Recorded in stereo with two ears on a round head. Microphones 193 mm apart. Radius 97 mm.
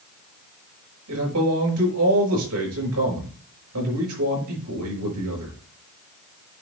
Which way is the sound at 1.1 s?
75° right (ahead or behind).